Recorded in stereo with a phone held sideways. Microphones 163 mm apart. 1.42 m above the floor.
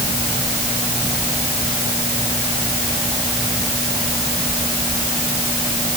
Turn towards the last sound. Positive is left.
No sound to turn to.